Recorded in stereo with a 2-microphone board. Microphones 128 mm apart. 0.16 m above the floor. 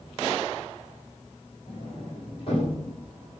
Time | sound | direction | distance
1.7 | a sliding door | 45° left (ahead or behind) | 4.5 m